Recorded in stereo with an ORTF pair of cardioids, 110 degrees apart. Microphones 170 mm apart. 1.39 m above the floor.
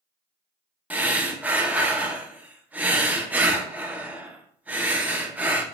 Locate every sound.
0.9 s breathing: 10° right, 0.5 m